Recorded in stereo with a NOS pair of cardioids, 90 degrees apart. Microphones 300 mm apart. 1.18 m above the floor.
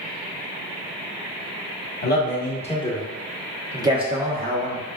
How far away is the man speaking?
About 1.3 m.